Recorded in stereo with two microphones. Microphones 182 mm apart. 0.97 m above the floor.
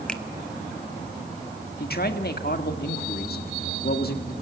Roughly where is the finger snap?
Centre.